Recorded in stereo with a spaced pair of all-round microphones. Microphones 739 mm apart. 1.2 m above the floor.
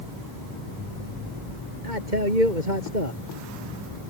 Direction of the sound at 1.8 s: 90° right.